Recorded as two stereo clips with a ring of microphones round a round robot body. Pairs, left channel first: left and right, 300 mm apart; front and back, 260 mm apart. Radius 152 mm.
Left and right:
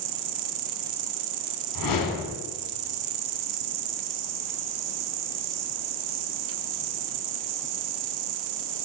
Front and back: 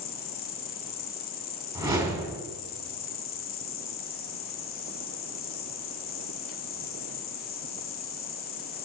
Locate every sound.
0.0 s an insect: 60° right, 0.7 m
1.8 s a whoosh: 105° left, 3.5 m